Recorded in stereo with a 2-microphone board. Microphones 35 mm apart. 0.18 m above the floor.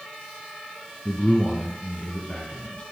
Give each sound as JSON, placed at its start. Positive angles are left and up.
{"t": 1.1, "sound": "a man speaking", "side_deg": 30, "distance_m": 1.2}